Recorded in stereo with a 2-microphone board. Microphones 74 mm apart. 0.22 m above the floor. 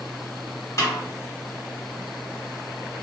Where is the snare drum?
40° left (ahead or behind), 1.2 m.